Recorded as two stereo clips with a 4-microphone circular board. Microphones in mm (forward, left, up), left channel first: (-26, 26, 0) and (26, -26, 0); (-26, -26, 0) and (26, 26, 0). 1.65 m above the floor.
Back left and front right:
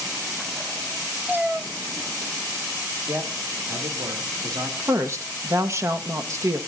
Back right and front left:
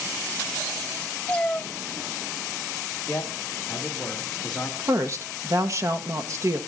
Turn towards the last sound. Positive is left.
turn(degrees=0)